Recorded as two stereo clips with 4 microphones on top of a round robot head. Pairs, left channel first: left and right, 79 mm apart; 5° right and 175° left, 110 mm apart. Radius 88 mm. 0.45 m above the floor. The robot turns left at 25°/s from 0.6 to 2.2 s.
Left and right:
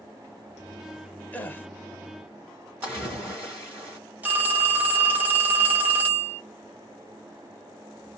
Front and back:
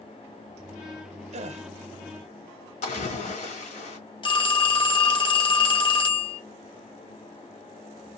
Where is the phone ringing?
25° right, 1.1 m.